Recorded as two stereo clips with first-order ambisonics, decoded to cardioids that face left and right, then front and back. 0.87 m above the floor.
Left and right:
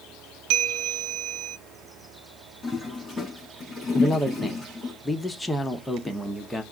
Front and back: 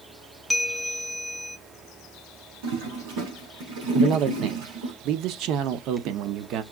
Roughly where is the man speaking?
Behind.